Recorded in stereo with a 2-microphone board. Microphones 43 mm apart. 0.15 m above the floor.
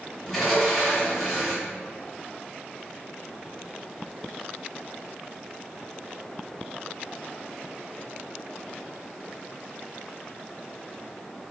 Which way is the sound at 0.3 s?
Centre (ahead or behind).